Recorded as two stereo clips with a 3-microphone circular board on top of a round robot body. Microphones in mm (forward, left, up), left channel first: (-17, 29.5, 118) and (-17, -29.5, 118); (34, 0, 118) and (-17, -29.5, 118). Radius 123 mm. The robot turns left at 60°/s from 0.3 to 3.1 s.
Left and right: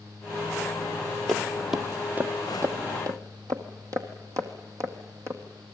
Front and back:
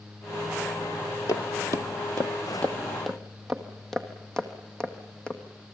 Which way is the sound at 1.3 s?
5° left.